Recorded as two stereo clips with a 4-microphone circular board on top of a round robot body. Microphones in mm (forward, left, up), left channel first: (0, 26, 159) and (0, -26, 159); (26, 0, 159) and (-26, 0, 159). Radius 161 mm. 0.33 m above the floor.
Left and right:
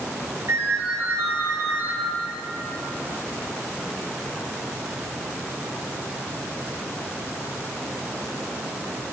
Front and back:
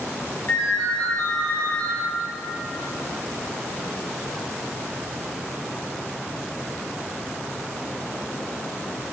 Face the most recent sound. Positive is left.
turn(degrees=-50)